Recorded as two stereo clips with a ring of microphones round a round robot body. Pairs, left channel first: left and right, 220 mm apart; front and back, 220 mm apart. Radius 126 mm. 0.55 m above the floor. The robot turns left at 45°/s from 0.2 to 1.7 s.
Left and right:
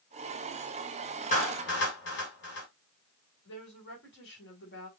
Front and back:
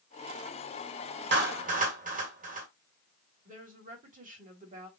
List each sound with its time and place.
1.3 s a clap: 145° left, 2.5 m; by 2.7 s 130° left, 2.5 m
3.5 s a woman speaking: 130° left, 3 m